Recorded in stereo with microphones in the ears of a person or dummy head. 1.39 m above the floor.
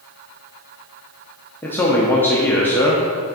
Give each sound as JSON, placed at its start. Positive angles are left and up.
{"t": 1.6, "sound": "a man speaking", "side_deg": 10, "distance_m": 0.6}